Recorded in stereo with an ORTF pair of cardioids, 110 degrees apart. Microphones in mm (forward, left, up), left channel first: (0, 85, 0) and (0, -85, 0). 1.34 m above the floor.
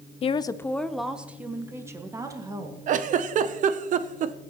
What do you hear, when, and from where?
0.2 s a woman speaking: 35° left, 0.6 m; by 2.8 s 20° right, 2 m
2.9 s a giggle: 50° right, 0.7 m